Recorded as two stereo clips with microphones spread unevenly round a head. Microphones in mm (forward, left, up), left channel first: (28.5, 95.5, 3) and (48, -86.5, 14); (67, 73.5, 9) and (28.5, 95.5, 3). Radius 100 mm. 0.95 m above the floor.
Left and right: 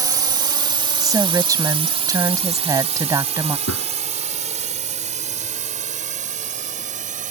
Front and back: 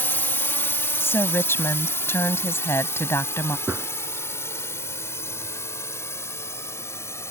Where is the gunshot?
90° left.